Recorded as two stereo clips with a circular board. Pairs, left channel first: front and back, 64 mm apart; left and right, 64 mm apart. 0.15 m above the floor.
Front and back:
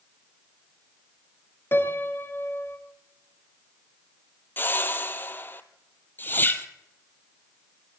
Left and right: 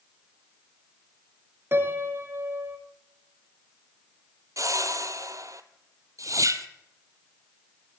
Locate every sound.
1.7 s a piano: 45° right, 1.2 m
4.6 s a whoosh: 55° right, 0.7 m